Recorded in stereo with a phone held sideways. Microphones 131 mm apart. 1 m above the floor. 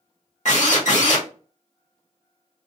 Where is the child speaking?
I don't hear a child speaking.